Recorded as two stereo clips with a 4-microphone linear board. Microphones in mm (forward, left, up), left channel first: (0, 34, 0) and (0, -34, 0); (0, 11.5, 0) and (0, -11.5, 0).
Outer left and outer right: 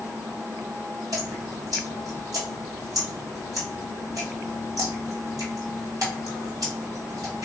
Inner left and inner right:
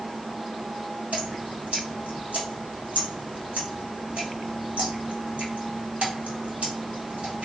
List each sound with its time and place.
1.1 s dripping: 60° right (ahead or behind), 1.3 m